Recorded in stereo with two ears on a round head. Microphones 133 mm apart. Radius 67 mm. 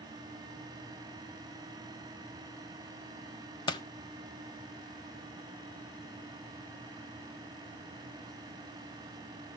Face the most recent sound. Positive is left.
turn(degrees=30)  # may be behind; listen again after turning